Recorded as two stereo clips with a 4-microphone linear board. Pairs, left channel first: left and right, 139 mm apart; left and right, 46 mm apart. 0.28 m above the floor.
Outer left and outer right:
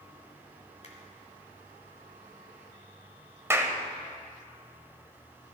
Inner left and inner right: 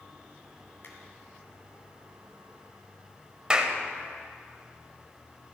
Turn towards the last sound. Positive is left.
turn(degrees=-20)  # may be behind; listen again after turning